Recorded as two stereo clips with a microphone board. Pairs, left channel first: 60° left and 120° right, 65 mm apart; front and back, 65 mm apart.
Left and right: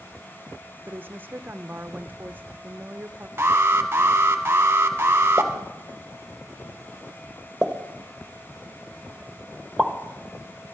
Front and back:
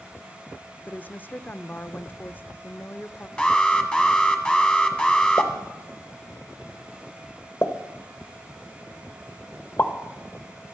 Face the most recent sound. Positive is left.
turn(degrees=-45)